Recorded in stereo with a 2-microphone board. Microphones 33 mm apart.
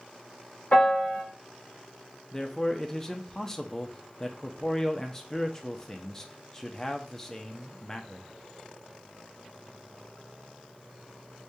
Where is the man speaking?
20° left (ahead or behind), 0.5 m.